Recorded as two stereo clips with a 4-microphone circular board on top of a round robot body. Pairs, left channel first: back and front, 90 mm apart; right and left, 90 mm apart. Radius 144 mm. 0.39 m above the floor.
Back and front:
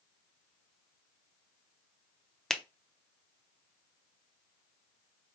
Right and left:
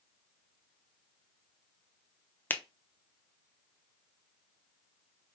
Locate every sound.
2.5 s a finger snap: 100° right, 0.8 m